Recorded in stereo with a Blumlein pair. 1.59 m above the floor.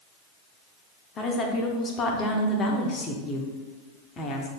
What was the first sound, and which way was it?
A woman speaking, 25° left.